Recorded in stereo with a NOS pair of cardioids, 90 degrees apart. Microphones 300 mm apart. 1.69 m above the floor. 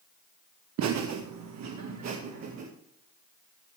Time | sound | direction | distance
0.8 | laughter | 70° right | 1.2 m